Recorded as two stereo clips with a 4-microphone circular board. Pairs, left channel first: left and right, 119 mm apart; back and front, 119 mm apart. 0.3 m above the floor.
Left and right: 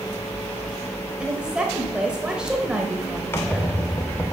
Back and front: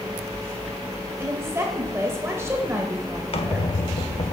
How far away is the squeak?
About 0.5 m.